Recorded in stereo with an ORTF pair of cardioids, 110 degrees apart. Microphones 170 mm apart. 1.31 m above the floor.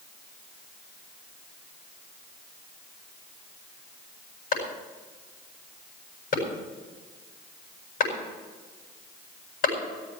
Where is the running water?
I don't hear running water.